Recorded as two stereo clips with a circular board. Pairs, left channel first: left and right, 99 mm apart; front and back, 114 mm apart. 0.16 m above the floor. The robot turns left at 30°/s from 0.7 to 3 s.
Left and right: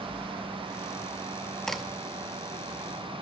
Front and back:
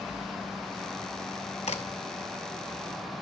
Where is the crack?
5° left, 0.7 m; by 1.8 s straight ahead, 0.7 m.